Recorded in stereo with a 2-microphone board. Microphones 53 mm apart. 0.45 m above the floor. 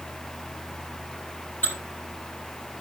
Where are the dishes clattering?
35° left (ahead or behind), 8.5 m.